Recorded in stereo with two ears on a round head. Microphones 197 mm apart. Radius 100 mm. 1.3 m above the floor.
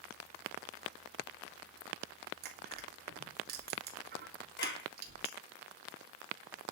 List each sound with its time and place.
2.4 s crushing: 50° right (ahead or behind), 3.5 m
4.6 s a clap: 45° left (ahead or behind), 6 m